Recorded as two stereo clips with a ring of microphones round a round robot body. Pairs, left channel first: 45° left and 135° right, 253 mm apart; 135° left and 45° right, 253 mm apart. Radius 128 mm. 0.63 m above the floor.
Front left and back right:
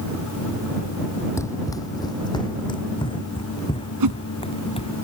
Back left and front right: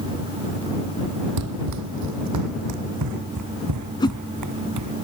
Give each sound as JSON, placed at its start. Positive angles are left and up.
{"t": 1.4, "sound": "running footsteps", "azimuth_deg": -35}
{"t": 4.0, "sound": "a whoosh", "azimuth_deg": -150}